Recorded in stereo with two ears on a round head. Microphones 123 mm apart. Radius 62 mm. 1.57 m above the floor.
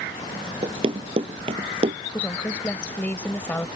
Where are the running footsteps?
40° right (ahead or behind); by 2.0 s 50° right (ahead or behind).